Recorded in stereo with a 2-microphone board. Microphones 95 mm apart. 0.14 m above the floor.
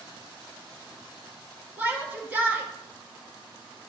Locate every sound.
1.8 s a shout: 15° right (ahead or behind), 1.6 m